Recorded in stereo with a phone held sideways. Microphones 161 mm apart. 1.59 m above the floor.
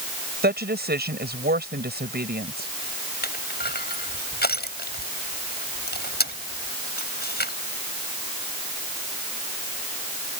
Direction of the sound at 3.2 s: 80° left.